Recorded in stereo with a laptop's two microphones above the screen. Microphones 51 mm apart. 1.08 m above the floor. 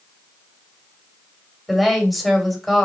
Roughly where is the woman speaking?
Centre.